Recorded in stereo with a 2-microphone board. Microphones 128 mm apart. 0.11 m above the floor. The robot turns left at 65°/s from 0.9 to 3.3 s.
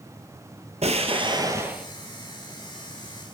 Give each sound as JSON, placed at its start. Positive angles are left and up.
{"t": 0.8, "sound": "an explosion", "azimuth_deg": -110, "distance_m": 1.0}